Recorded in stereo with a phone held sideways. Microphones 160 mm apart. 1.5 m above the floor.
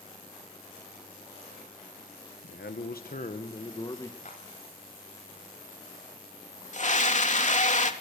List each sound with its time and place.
2.4 s a man speaking: 85° left, 1.4 m; by 4.2 s 20° left (ahead or behind), 1.8 m
4.2 s a clap: 55° left (ahead or behind), 9.5 m
6.7 s a scream: 50° left (ahead or behind), 3 m